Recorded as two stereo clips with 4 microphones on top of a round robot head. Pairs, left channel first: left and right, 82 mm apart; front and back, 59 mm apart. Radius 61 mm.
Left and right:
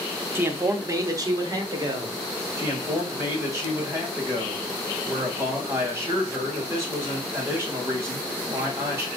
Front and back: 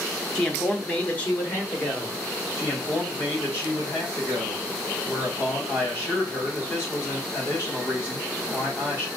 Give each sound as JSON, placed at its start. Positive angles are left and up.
{"t": 0.3, "sound": "a man speaking", "azimuth_deg": -60, "distance_m": 0.7}
{"t": 2.6, "sound": "a man speaking", "azimuth_deg": -40, "distance_m": 2.0}